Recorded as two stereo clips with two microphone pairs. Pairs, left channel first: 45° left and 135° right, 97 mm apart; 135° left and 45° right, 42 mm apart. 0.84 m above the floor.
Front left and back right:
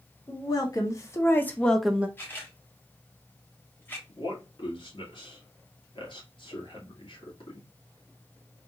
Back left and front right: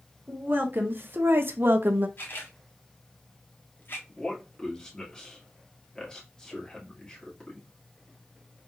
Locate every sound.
0.3 s a woman speaking: 5° right, 1.5 m; by 2.1 s 70° right, 0.6 m
2.2 s a camera shutter: 115° left, 1.5 m
4.1 s a man speaking: 70° left, 2 m